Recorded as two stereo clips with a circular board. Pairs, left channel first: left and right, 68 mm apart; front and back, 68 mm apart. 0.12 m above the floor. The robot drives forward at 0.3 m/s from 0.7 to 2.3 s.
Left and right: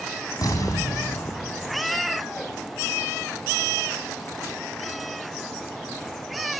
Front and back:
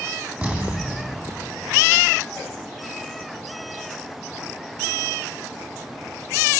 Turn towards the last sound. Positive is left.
turn(degrees=120)